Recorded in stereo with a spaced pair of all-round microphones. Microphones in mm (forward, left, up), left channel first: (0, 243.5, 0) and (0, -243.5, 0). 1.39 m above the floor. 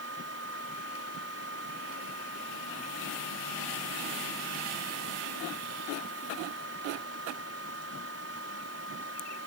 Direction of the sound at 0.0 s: 30° right (ahead or behind).